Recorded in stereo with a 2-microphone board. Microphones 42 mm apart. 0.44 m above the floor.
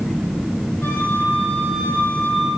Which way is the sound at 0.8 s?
85° left.